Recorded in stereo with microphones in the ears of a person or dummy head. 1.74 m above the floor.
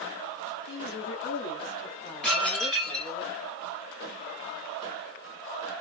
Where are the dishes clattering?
Centre (ahead or behind), 1.8 m.